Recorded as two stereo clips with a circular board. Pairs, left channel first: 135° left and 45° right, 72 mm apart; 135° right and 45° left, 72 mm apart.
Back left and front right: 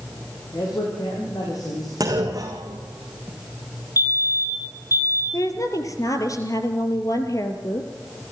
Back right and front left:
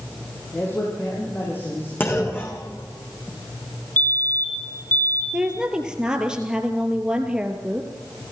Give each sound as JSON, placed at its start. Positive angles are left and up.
{"t": 0.5, "sound": "a man speaking", "azimuth_deg": 160, "distance_m": 6.0}
{"t": 2.0, "sound": "a clunk", "azimuth_deg": -80, "distance_m": 4.0}
{"t": 4.0, "sound": "a fire alarm", "azimuth_deg": 160, "distance_m": 5.5}
{"t": 5.3, "sound": "a woman speaking", "azimuth_deg": 120, "distance_m": 1.9}